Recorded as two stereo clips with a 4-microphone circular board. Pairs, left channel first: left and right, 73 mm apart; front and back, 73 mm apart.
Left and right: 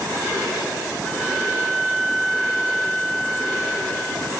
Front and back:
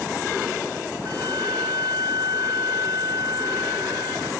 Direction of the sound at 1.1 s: 175° left.